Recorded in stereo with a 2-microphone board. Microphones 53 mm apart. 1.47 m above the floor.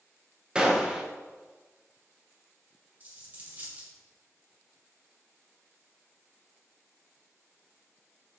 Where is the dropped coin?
35° right (ahead or behind), 2 m.